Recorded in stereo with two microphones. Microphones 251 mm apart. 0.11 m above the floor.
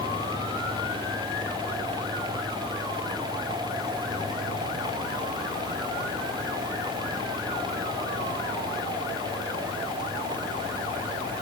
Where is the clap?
No clap in this recording.